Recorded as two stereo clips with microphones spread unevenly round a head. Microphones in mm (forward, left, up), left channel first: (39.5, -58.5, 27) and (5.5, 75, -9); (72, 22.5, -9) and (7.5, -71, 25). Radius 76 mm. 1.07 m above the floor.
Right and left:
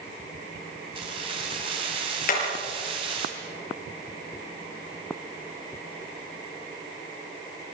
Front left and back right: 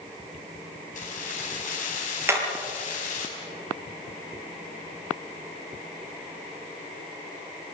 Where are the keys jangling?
50° left, 5.5 m.